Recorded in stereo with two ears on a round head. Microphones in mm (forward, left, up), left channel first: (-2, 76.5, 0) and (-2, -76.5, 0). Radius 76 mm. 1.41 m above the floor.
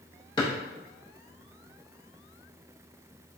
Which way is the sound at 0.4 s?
25° left (ahead or behind).